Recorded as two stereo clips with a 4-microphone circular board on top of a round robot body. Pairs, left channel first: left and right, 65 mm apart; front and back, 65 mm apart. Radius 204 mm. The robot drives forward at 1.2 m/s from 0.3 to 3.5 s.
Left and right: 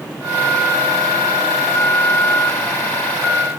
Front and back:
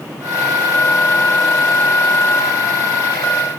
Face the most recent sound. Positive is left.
No sound to turn to.